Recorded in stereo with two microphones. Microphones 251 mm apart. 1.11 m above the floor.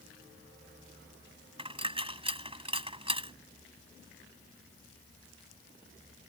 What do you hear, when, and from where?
1.6 s a dropped coin: 20° right (ahead or behind)